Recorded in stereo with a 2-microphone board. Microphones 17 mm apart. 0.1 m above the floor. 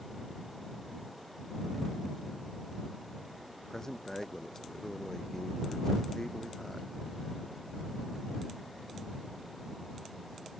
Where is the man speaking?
25° left (ahead or behind).